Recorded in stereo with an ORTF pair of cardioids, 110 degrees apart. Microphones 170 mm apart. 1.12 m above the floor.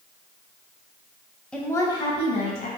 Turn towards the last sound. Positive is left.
turn(degrees=50)